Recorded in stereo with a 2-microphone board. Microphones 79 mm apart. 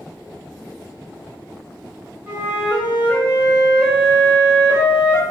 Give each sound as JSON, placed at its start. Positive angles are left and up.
{"t": 2.3, "sound": "a flute", "side_deg": -20, "distance_m": 0.7}